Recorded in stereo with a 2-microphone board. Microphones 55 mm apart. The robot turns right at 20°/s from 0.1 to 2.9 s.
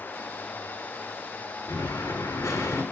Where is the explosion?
80° left, 2 m; by 2.8 s 70° left (ahead or behind), 2 m.